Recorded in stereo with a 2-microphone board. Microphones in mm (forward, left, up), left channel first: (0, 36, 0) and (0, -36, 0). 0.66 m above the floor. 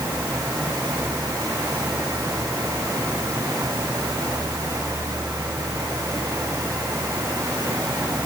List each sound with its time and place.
Only background noise.